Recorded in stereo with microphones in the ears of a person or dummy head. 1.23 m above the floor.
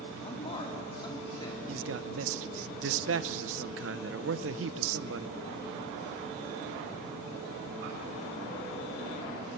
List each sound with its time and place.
0.2 s a man speaking: 30° left (ahead or behind), 2.5 m; by 1.6 s 20° left (ahead or behind), 3 m
1.7 s a man speaking: 60° right (ahead or behind), 0.8 m